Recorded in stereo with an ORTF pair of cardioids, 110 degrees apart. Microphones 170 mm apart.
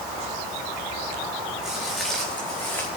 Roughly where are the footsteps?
Ahead.